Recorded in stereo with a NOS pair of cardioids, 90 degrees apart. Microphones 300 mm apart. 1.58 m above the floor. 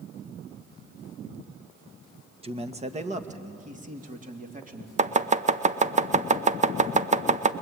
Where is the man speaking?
20° right, 1.5 m; by 4.9 s 25° right, 3.5 m.